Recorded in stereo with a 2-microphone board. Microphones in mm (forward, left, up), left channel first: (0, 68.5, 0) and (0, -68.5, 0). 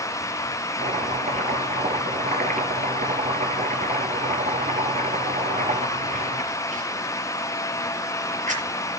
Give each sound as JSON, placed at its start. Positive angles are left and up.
{"t": 0.8, "sound": "chopping", "side_deg": -75, "distance_m": 5.5}